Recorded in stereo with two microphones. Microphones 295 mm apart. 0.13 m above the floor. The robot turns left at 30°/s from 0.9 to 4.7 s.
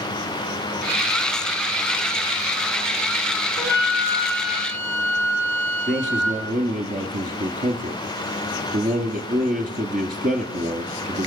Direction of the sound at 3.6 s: 145° right.